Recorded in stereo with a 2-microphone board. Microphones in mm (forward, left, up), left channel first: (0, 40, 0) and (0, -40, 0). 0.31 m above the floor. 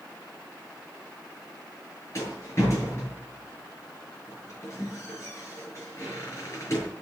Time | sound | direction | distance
2.1 | a rattle | 35° left (ahead or behind) | 7 m